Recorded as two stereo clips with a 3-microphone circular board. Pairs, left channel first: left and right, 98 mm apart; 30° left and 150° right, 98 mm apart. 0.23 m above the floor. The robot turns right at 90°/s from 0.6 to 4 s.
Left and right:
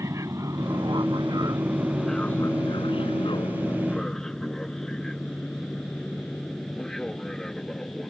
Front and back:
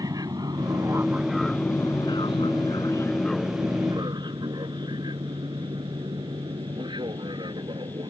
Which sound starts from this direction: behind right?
An aircraft, at 0.0 s.